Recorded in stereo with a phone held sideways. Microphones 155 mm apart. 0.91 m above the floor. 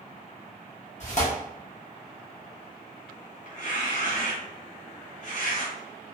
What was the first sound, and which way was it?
Tearing paper, 50° left (ahead or behind).